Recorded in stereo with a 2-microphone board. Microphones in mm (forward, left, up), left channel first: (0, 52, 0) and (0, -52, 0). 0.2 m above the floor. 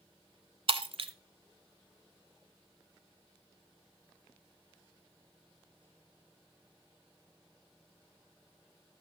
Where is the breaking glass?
60° right (ahead or behind), 0.9 m.